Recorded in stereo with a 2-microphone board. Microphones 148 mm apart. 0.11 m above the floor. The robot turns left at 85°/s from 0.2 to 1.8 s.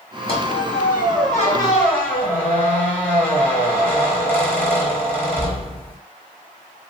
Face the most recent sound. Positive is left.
turn(degrees=15)